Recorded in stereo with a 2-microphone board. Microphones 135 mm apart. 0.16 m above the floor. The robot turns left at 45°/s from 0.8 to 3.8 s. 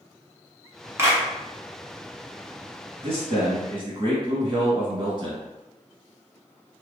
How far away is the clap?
About 1.0 m.